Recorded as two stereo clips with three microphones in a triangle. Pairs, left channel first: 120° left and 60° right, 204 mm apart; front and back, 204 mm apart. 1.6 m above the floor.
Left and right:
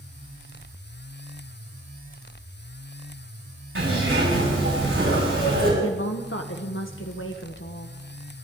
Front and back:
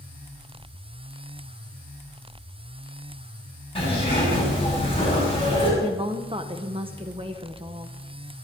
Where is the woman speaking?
115° left, 1.1 m.